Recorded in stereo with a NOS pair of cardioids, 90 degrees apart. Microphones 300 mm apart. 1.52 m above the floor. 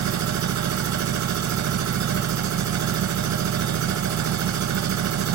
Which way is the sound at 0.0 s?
70° right.